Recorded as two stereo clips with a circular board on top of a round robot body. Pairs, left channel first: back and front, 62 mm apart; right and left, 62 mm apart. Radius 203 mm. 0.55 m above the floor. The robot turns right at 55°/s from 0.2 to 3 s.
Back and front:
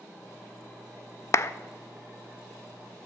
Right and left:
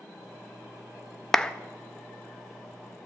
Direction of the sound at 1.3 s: 170° right.